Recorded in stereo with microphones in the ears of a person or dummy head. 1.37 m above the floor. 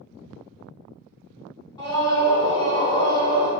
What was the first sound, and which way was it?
A scream, 15° left (ahead or behind).